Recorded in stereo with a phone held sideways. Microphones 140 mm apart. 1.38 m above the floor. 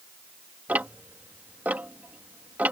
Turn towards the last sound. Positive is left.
turn(degrees=-10)  # may be behind; listen again after turning